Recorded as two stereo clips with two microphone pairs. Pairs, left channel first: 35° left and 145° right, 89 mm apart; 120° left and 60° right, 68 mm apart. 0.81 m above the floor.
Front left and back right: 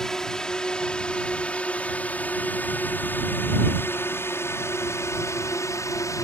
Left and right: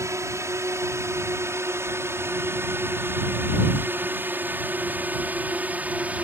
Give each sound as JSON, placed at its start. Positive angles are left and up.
{"t": 0.0, "sound": "a drone", "azimuth_deg": -45}